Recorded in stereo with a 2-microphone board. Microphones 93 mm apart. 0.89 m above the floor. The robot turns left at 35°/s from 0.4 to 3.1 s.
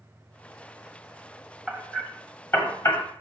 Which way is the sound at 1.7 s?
5° left (ahead or behind).